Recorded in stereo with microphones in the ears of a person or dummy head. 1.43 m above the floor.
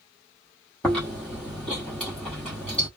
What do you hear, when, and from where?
0.8 s chewing: 5° left (ahead or behind), 0.9 m